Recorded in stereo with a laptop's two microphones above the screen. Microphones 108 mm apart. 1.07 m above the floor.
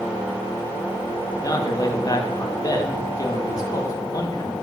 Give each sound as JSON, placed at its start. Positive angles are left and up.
{"t": 1.3, "sound": "a man speaking", "side_deg": 35, "distance_m": 1.8}